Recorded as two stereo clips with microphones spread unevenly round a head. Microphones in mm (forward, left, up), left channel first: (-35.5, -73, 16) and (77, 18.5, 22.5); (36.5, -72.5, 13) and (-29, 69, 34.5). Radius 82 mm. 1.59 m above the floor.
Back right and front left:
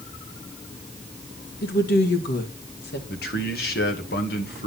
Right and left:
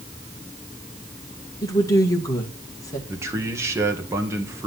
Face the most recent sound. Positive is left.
turn(degrees=-170)